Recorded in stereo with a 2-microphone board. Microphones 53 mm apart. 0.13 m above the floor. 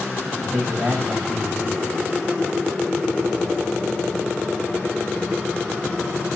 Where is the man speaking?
15° right (ahead or behind), 9 m.